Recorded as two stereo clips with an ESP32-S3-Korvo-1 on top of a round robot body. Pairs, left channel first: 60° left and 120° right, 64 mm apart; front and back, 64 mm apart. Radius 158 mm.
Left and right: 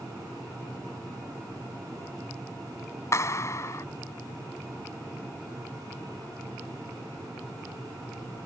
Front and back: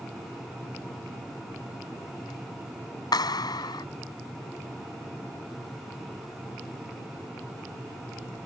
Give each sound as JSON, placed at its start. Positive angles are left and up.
{"t": 3.1, "sound": "a clap", "azimuth_deg": 15}